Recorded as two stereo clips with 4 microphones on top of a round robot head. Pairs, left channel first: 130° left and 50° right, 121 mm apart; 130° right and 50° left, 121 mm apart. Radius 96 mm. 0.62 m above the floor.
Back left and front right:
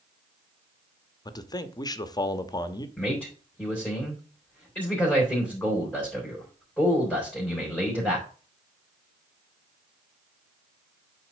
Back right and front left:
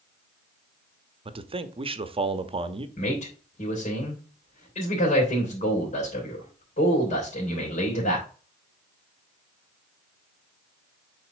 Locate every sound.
1.2 s a man speaking: 80° left, 1.0 m
3.0 s a man speaking: 150° right, 3.5 m